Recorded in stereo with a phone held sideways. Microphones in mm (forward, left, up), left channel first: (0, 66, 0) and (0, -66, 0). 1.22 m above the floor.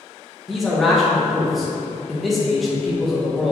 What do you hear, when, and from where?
0.5 s a man speaking: centre (ahead or behind), 1.1 m